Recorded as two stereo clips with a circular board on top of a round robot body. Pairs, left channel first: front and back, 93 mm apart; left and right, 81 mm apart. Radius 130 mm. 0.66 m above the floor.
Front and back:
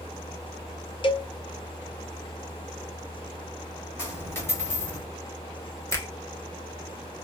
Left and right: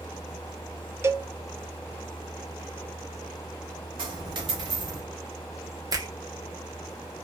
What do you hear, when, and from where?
1.0 s a cowbell: 35° right, 0.6 m
4.0 s a dropped coin: 65° right, 1.1 m
5.9 s a finger snap: 55° right, 1.3 m